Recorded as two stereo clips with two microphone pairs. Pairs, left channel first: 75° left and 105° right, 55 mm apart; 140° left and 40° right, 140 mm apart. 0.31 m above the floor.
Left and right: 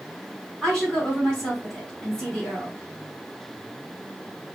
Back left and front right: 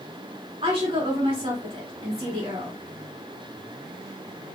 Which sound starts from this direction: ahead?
A woman speaking, at 0.6 s.